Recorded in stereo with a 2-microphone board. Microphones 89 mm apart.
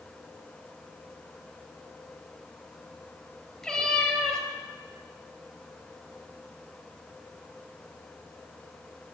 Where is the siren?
I don't hear a siren.